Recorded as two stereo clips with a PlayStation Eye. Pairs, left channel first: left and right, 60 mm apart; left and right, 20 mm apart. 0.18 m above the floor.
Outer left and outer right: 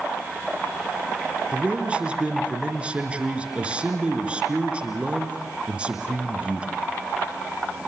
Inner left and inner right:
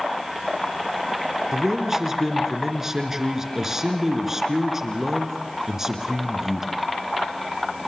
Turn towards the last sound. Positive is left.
turn(degrees=-20)  # may be behind; listen again after turning